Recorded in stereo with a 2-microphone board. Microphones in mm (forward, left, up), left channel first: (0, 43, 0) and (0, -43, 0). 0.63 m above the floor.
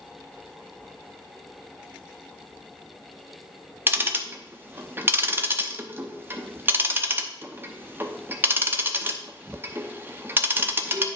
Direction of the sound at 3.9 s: 25° right (ahead or behind).